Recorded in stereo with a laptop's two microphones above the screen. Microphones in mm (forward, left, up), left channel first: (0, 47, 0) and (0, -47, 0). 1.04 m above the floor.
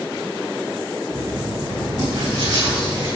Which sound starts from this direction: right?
Writing, at 1.1 s.